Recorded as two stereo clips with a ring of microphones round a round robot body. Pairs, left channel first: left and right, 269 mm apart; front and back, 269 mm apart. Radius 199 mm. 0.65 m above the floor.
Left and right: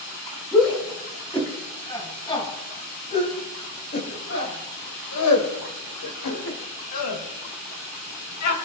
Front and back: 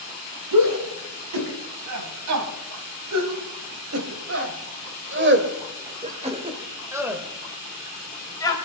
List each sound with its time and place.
0.5 s a shout: straight behind, 5.5 m; by 8.6 s 75° left, 3.5 m